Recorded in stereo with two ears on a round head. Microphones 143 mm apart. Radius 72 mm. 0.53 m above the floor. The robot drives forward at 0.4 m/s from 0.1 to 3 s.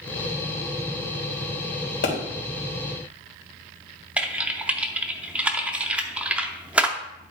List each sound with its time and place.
2.0 s a pop: 60° left (ahead or behind), 3.5 m
4.2 s typing on a keyboard: 10° right (ahead or behind), 0.7 m